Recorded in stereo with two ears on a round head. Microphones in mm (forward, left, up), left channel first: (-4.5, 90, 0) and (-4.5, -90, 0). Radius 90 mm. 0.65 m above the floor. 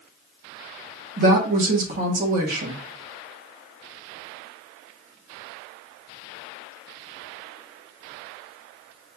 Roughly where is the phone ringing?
I don't hear a phone ringing.